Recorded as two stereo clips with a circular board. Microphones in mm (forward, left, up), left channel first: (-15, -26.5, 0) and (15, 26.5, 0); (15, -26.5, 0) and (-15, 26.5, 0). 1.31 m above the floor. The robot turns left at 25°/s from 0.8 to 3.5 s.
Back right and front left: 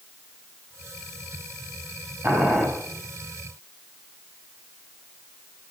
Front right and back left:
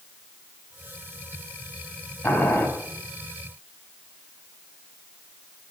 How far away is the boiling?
About 4.5 m.